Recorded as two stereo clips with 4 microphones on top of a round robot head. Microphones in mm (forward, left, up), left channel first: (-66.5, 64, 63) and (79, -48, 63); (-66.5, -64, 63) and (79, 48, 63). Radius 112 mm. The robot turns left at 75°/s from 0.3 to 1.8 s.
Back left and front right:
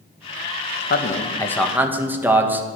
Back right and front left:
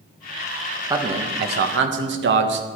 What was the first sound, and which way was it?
A man speaking, 110° left.